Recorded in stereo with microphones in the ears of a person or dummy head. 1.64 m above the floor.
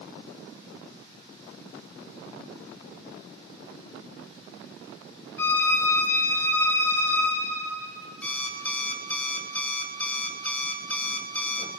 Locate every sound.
5.4 s a violin: 15° left (ahead or behind), 4 m
8.2 s an alarm clock: 5° left (ahead or behind), 1.4 m